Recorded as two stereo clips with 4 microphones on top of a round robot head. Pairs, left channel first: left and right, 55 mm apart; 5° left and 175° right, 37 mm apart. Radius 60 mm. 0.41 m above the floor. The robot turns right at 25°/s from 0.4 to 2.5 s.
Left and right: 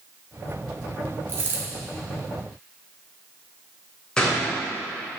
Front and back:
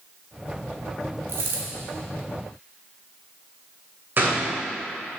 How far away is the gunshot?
About 2.5 m.